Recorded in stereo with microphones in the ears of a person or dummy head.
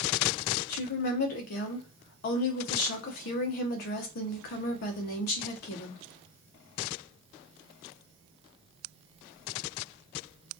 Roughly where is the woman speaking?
Left.